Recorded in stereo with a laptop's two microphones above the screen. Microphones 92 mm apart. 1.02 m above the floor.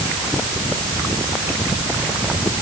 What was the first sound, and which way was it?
Only background noise.